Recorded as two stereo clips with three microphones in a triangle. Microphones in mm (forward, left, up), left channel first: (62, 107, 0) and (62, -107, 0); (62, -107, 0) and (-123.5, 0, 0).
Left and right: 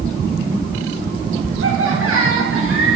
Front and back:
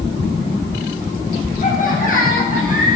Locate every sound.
1.6 s laughter: 85° right, 8 m; by 3.0 s 80° right, 8.5 m